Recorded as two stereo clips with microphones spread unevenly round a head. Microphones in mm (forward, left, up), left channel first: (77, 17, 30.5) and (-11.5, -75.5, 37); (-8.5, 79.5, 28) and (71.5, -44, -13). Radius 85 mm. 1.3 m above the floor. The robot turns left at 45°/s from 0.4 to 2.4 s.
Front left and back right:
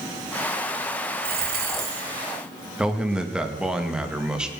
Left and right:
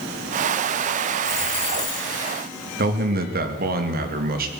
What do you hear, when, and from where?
1.2 s a dropped coin: 150° right, 3.5 m; by 2.1 s 175° left, 3.5 m
2.8 s a man speaking: 50° right, 2.5 m